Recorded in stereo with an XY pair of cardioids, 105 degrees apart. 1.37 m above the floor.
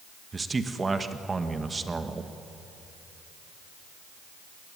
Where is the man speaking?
25° right, 1.4 m.